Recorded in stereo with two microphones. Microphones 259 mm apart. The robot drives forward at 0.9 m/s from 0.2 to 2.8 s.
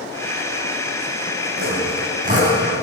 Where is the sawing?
40° right (ahead or behind), 3.5 m; by 2.8 s 30° right (ahead or behind), 4.5 m.